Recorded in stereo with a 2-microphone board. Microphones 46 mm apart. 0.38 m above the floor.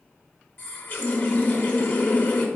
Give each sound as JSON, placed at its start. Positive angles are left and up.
{"t": 0.6, "sound": "a running tap", "side_deg": 35, "distance_m": 0.7}